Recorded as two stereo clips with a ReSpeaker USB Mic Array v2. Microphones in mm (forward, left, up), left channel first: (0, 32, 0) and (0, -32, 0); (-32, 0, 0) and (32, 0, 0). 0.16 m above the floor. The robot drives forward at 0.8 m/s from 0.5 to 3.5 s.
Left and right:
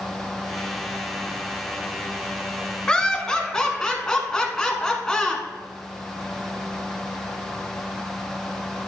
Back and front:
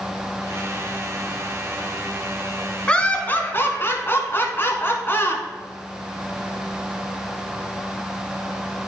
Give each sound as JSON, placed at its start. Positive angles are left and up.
{"t": 2.9, "sound": "laughter", "azimuth_deg": 140, "distance_m": 1.1}